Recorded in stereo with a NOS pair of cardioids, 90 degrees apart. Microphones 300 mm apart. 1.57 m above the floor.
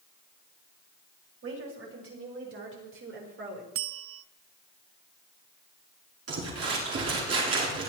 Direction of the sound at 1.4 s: 45° right.